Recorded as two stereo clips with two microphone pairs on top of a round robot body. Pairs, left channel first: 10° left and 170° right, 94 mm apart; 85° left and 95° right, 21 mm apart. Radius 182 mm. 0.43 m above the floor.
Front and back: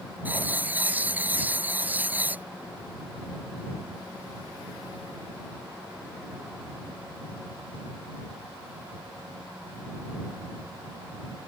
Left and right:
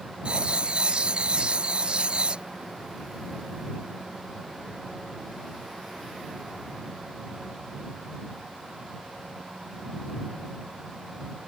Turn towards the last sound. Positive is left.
turn(degrees=-105)